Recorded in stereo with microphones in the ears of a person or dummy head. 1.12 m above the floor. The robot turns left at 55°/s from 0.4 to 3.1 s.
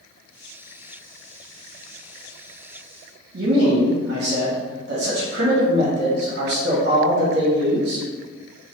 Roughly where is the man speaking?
Right.